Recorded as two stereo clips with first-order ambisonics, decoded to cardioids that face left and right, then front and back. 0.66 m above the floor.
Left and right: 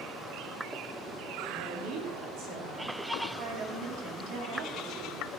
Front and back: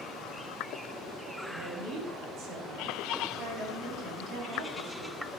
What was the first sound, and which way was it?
A woman speaking, 130° right.